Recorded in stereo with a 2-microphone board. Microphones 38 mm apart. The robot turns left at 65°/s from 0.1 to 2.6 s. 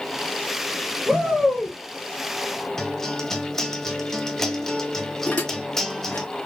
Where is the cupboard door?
I don't hear a cupboard door.